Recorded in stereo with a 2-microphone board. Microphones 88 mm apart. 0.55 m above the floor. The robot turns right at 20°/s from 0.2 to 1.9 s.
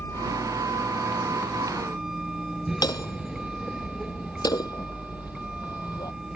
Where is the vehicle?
150° left; by 6.4 s 175° right.